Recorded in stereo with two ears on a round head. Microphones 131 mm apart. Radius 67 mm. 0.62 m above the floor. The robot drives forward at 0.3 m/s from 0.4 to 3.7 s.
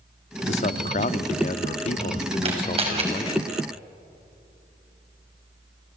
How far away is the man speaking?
About 0.8 m.